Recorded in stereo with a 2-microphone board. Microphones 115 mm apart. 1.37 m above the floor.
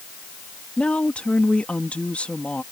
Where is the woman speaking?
10° left (ahead or behind).